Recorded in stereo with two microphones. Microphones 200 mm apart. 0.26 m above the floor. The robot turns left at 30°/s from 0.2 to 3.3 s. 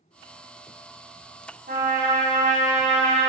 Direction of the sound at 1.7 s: 95° right.